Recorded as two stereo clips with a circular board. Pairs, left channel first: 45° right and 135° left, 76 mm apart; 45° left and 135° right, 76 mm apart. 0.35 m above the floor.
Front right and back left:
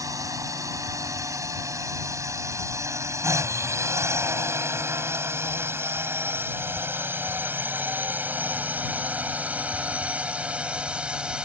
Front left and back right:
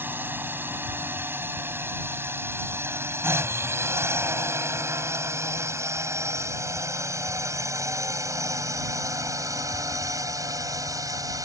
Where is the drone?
165° left; by 11.5 s 150° right.